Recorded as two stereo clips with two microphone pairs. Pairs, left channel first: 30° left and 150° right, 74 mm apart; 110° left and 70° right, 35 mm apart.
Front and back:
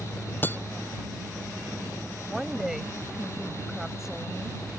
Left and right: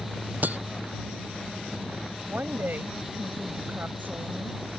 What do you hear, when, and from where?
0.4 s breaking glass: 30° right
2.2 s a woman speaking: 65° right